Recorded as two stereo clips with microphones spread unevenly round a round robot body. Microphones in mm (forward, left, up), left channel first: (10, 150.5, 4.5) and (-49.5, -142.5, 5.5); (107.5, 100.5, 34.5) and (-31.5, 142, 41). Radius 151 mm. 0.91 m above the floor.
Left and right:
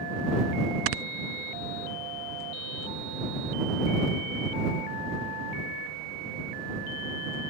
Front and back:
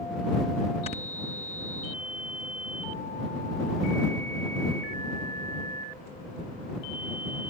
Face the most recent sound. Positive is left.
turn(degrees=-80)